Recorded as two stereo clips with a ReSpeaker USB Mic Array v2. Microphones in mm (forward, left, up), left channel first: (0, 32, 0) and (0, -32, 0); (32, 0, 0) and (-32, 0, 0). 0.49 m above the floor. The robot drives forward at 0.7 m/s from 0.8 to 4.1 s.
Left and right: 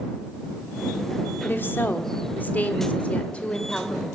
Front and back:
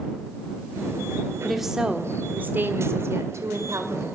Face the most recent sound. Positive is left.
turn(degrees=160)